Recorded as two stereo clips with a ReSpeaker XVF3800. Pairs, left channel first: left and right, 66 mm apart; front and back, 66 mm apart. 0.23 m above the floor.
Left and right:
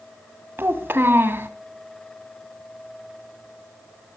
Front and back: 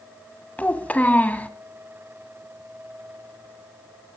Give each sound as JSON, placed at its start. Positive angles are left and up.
{"t": 0.6, "sound": "a child speaking", "azimuth_deg": -55, "distance_m": 1.1}